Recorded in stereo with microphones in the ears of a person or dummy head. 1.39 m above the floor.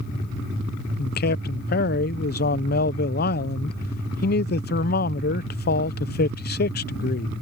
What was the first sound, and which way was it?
A man speaking, 45° left (ahead or behind).